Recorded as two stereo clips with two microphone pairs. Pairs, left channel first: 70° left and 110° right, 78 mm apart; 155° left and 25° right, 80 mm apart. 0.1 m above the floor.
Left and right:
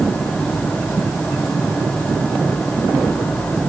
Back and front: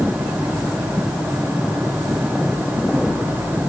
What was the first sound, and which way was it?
Only background noise.